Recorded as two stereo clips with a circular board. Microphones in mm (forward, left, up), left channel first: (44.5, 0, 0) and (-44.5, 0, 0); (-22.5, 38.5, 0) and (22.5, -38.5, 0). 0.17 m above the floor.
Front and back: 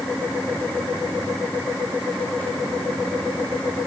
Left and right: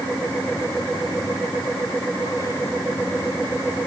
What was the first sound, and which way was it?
Only background noise.